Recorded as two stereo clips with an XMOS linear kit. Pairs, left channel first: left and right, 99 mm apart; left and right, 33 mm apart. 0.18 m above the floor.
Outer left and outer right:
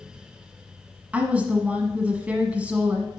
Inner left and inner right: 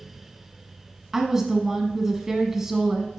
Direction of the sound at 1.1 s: 15° right (ahead or behind).